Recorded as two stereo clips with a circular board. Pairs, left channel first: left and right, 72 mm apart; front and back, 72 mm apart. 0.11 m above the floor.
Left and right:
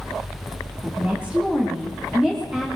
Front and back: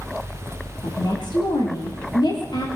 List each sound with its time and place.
0.8 s a woman speaking: 20° right, 8 m; by 2.7 s 10° right, 8 m